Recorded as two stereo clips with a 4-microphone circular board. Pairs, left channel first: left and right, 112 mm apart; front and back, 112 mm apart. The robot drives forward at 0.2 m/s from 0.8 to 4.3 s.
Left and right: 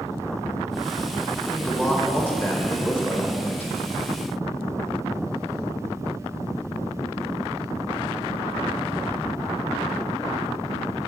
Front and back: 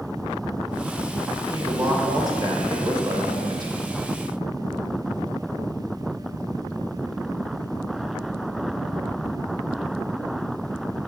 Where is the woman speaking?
150° left, 1.6 m; by 3.7 s 160° left, 1.9 m.